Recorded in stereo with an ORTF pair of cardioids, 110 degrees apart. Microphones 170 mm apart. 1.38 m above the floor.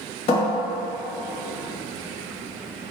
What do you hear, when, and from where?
0.3 s a cupboard door: 40° left, 1.2 m